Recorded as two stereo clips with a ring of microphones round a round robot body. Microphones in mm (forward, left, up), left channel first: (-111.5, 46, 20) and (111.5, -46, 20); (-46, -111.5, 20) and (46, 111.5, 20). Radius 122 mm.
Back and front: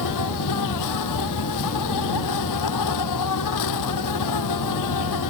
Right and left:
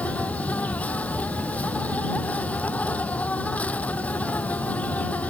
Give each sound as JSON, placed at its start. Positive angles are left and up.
{"t": 0.0, "sound": "an insect", "azimuth_deg": 165}